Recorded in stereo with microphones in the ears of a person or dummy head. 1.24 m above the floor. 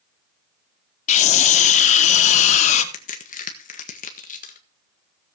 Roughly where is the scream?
Left.